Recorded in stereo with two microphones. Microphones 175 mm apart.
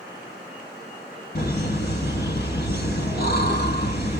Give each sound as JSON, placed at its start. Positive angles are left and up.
{"t": 1.4, "sound": "laughter", "side_deg": 65, "distance_m": 2.5}